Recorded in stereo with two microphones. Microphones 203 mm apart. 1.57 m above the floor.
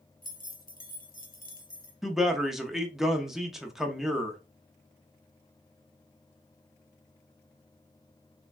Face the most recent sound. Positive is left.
turn(degrees=0)  # may be behind; listen again after turning